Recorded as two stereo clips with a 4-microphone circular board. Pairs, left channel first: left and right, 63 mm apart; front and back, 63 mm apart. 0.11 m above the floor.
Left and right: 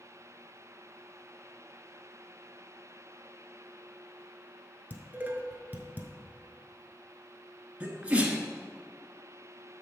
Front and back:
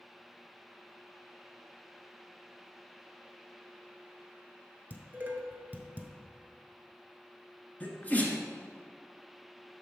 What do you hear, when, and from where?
4.9 s dishes clattering: 135° right, 1.2 m
7.8 s a sneeze: 40° right, 1.2 m